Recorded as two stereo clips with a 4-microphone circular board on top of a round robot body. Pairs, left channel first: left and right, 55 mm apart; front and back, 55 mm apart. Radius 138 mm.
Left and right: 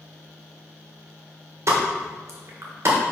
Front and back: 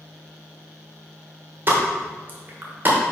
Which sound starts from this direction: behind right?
A pop, at 1.7 s.